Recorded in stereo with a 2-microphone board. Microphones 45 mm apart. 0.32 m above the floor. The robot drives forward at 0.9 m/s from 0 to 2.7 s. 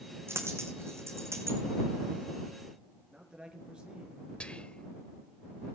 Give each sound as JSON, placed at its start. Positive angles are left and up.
{"t": 0.3, "sound": "a dropped coin", "side_deg": -65, "distance_m": 4.0}
{"t": 3.1, "sound": "a man speaking", "side_deg": -20, "distance_m": 5.0}
{"t": 4.4, "sound": "whispering", "side_deg": 20, "distance_m": 1.1}